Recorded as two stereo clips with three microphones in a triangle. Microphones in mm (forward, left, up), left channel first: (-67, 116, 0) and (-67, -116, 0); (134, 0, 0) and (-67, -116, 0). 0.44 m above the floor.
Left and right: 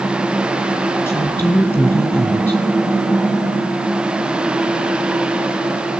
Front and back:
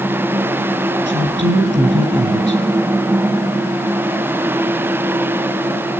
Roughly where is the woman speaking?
Behind.